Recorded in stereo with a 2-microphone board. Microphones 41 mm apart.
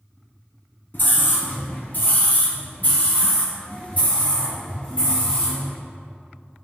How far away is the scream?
About 1.8 m.